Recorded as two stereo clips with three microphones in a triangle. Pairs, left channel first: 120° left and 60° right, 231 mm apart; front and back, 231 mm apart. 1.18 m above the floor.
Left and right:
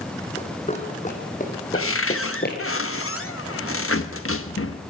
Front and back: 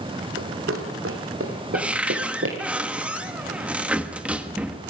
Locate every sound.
0.4 s running footsteps: straight behind, 3.5 m; by 2.6 s 160° left, 3 m
1.7 s a cupboard door: 95° left, 1.2 m